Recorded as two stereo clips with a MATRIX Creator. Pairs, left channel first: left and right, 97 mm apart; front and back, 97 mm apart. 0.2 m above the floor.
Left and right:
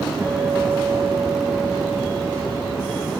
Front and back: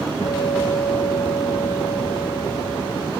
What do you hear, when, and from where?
0.2 s a guitar: 30° right, 4 m